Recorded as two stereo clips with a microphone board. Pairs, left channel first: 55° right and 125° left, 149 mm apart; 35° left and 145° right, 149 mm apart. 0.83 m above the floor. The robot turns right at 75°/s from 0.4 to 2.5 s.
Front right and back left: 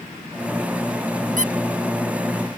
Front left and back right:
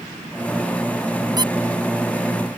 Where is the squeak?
150° left; by 1.5 s 165° left.